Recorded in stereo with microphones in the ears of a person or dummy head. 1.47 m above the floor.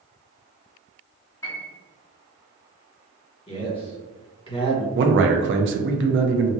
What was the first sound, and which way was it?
A piano, 15° left (ahead or behind).